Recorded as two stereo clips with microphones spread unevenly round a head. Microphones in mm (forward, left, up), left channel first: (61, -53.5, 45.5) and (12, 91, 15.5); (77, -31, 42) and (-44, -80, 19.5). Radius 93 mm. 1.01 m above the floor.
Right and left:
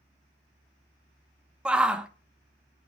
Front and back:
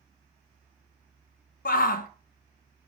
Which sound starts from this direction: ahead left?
A shout, at 1.6 s.